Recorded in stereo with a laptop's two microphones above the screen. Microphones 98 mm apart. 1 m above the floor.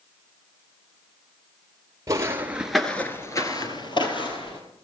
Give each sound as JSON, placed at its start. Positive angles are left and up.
{"t": 2.1, "sound": "footsteps", "side_deg": -35, "distance_m": 1.3}